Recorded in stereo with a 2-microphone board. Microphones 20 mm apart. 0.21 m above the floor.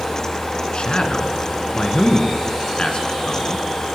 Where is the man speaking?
55° left (ahead or behind), 2.5 m.